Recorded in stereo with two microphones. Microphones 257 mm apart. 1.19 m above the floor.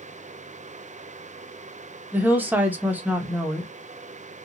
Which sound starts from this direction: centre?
A woman speaking, at 2.1 s.